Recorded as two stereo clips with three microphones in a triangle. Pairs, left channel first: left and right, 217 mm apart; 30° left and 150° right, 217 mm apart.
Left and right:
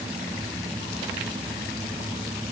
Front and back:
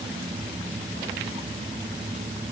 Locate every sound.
Only background noise.